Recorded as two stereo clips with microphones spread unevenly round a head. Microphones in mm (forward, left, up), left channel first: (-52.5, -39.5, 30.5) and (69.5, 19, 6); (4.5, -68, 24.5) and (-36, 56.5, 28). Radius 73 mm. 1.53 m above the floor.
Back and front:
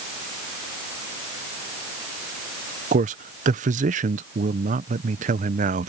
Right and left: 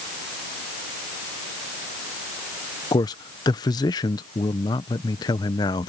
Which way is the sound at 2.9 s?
10° right.